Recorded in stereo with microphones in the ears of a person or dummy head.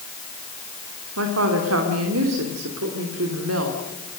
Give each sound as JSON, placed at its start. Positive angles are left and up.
{"t": 1.2, "sound": "a woman speaking", "side_deg": -85, "distance_m": 2.5}